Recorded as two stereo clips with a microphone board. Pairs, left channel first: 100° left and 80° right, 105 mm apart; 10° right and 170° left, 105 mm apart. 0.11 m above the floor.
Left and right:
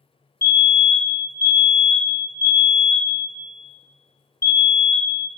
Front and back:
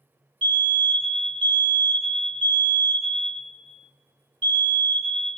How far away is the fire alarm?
About 3 m.